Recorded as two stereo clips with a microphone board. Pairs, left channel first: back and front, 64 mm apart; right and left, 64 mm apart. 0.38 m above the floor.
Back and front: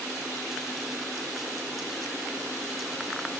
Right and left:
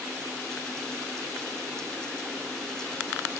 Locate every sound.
Only background noise.